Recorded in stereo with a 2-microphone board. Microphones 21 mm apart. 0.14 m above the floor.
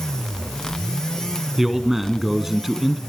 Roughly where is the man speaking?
Centre.